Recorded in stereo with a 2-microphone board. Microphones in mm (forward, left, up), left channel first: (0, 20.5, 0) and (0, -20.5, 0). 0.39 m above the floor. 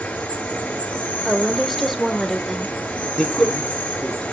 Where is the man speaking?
15° left (ahead or behind), 5.5 m.